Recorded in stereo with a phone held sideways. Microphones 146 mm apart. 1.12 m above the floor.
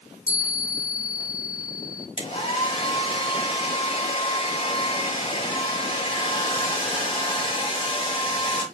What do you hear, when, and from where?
0.3 s a chime: 20° left (ahead or behind), 1.4 m
2.2 s a hair dryer: 35° left (ahead or behind), 1.4 m